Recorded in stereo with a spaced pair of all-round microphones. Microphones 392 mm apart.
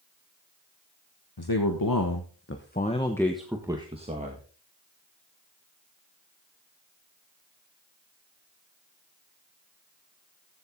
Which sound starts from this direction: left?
A man speaking, at 1.4 s.